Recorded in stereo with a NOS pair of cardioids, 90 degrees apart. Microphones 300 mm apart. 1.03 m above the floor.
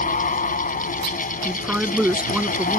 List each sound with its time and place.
0.0 s a fan: 25° left
1.4 s a woman speaking: 5° right